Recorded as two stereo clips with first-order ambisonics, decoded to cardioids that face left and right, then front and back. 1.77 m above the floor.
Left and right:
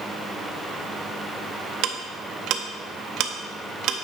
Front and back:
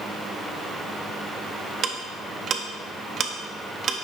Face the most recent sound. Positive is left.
turn(degrees=-120)